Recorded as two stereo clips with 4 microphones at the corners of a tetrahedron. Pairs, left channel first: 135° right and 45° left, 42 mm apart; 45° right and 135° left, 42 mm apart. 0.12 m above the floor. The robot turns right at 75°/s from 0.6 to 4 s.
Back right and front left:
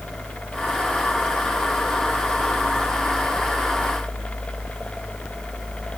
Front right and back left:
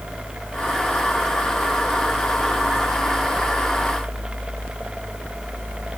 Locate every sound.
Only background noise.